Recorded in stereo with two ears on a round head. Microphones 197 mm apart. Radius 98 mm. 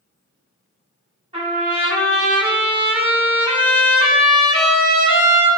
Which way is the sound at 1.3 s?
25° right (ahead or behind).